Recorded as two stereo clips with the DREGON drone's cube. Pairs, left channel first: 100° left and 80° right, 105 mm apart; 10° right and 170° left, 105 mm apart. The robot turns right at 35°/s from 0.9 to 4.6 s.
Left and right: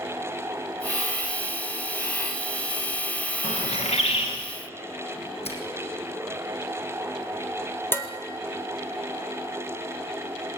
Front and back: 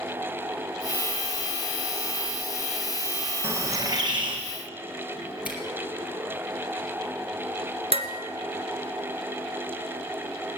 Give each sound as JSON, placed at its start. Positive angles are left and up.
{"t": 3.4, "sound": "a bird", "azimuth_deg": 100, "distance_m": 3.5}
{"t": 5.5, "sound": "a finger snap", "azimuth_deg": 90, "distance_m": 4.5}
{"t": 7.9, "sound": "dishes clattering", "azimuth_deg": 170, "distance_m": 1.9}